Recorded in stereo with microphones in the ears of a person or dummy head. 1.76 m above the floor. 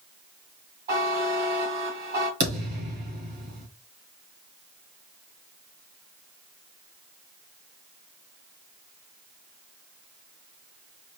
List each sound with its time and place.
0.9 s a buzzer: 55° right (ahead or behind), 1.2 m
2.4 s a thud: 45° right (ahead or behind), 1.8 m